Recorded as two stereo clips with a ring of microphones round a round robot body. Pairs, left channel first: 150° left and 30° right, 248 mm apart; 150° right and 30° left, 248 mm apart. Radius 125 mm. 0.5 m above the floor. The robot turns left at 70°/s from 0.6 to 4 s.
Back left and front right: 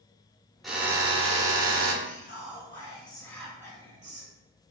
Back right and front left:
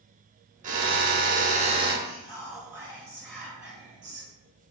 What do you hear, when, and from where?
0.6 s a drill: 60° left, 0.9 m; by 1.9 s 30° right, 0.9 m
2.0 s whispering: 160° left, 1.7 m; by 4.3 s 20° left, 1.7 m